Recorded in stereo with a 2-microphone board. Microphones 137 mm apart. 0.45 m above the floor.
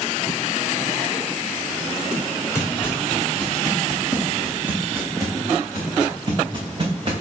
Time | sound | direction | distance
2.5 | footsteps | 20° left (ahead or behind) | 2 m